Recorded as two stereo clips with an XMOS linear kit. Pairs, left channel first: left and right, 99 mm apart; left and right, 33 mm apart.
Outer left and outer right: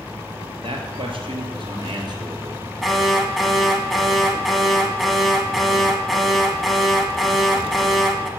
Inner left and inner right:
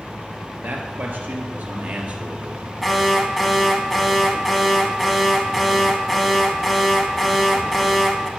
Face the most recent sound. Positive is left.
turn(degrees=0)  # may be behind; listen again after turning